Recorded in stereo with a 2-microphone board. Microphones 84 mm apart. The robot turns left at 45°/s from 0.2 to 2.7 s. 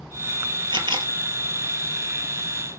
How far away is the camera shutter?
About 1.7 m.